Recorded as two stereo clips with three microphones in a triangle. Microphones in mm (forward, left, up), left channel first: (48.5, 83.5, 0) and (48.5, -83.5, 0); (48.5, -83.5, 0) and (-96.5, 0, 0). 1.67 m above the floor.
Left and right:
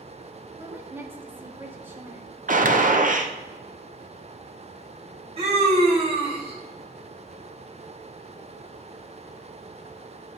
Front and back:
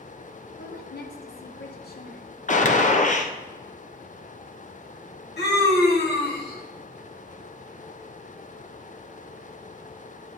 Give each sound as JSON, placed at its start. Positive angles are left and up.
{"t": 0.6, "sound": "a woman speaking", "azimuth_deg": -10, "distance_m": 1.2}
{"t": 2.5, "sound": "a gunshot", "azimuth_deg": -60, "distance_m": 0.7}
{"t": 5.4, "sound": "a scream", "azimuth_deg": -35, "distance_m": 2.5}